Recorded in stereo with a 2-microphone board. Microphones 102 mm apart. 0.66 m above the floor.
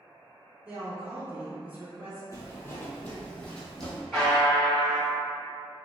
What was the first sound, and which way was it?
A woman speaking, 15° right (ahead or behind).